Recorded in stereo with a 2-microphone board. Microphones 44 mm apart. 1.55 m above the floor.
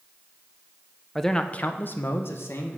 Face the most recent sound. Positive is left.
turn(degrees=70)  # may be behind; listen again after turning